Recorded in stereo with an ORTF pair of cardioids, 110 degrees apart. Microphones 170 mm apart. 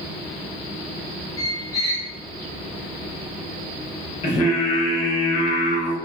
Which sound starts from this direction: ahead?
A squeak, at 1.4 s.